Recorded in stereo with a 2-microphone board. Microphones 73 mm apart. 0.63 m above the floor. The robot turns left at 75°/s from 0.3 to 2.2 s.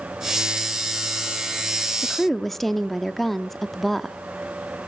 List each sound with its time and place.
2.0 s a woman speaking: 10° right (ahead or behind), 1.0 m; by 4.2 s centre (ahead or behind), 1.0 m